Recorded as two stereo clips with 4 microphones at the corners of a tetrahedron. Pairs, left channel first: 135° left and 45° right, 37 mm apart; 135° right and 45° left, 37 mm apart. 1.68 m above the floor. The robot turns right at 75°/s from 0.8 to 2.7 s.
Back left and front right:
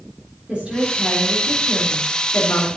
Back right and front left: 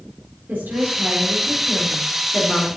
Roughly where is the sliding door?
I don't hear a sliding door.